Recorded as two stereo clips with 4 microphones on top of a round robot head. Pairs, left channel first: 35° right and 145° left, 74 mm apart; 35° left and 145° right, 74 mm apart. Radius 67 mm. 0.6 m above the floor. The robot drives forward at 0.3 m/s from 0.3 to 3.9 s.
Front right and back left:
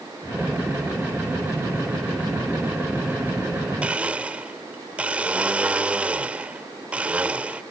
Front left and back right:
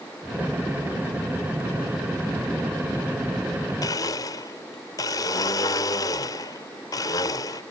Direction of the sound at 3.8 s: 70° left.